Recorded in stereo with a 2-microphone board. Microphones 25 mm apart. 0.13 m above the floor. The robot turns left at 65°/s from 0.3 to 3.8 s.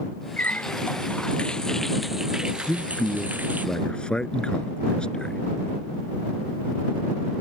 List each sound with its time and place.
0.4 s a running tap: 105° left; by 3.7 s 105° right
2.7 s a man speaking: 130° left; by 5.4 s 60° left